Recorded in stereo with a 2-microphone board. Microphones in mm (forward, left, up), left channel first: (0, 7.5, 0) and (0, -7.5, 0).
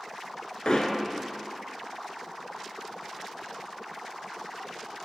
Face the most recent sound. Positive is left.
turn(degrees=55)  # may be behind; listen again after turning